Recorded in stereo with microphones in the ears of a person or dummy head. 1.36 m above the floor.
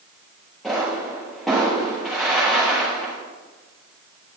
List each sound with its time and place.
0.6 s a pop: centre (ahead or behind), 7.5 m